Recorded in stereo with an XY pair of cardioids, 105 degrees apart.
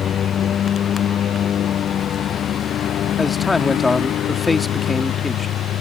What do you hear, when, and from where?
0.0 s a lawn mower: 55° left; by 5.8 s 70° left
3.2 s a man speaking: 20° left